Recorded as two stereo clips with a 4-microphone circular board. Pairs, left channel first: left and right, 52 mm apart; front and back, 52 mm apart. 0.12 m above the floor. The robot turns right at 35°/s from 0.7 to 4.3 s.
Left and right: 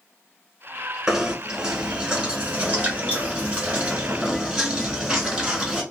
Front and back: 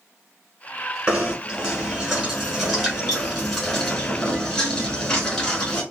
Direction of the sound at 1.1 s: 155° right.